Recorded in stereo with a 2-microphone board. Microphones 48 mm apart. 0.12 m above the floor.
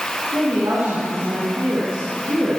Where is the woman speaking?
75° right (ahead or behind), 9 m.